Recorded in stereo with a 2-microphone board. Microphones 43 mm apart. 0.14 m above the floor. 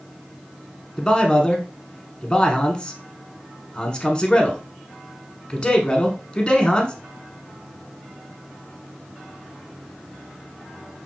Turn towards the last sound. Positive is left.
turn(degrees=20)  # may be behind; listen again after turning